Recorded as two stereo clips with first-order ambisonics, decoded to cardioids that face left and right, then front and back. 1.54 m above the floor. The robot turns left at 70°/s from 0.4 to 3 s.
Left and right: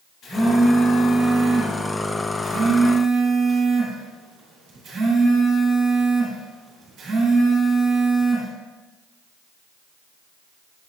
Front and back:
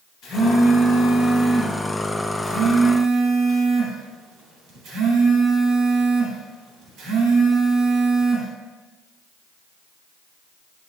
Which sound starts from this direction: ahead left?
A phone buzzing, at 0.2 s.